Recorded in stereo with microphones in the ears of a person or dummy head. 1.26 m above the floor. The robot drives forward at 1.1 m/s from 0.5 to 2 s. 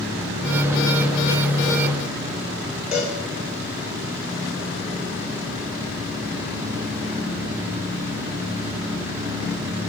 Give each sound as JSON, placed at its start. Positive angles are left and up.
{"t": 2.9, "sound": "a cowbell", "side_deg": -15, "distance_m": 3.0}